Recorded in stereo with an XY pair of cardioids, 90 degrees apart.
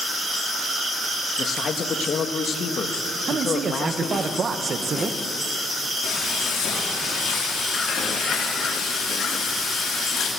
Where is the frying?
70° left, 4.5 m.